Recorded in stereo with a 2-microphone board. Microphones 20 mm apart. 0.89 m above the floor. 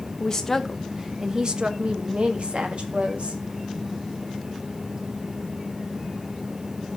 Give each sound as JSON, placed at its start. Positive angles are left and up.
{"t": 0.2, "sound": "a woman speaking", "side_deg": 25, "distance_m": 0.7}